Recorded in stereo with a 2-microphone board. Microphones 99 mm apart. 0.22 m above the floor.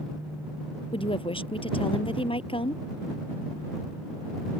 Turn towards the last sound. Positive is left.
turn(degrees=60)  # may be behind; listen again after turning